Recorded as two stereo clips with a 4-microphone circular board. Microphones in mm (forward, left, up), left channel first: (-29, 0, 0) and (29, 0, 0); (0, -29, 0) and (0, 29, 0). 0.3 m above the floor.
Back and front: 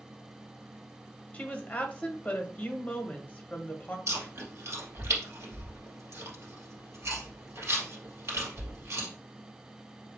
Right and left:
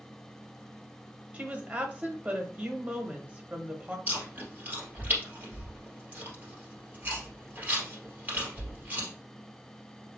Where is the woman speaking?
130° left, 1.1 m.